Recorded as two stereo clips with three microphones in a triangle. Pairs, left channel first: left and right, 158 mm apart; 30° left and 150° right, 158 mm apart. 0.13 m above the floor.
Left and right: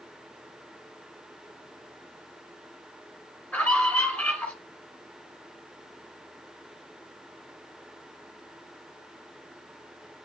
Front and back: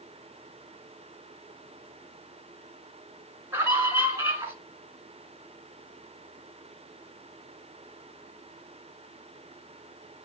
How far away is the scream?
About 1.8 m.